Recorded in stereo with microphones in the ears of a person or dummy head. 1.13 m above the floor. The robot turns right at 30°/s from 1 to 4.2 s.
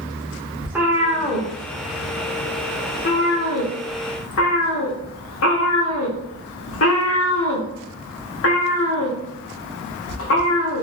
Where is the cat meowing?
5° right (ahead or behind), 1.3 m; by 10.8 s 70° left (ahead or behind), 1.3 m.